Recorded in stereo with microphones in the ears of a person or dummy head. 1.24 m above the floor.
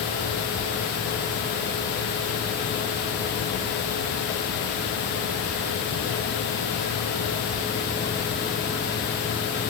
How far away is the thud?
No thud in this recording.